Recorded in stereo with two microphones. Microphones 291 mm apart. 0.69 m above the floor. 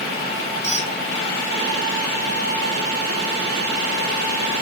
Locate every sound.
0.6 s a squeak: 25° left (ahead or behind), 1.8 m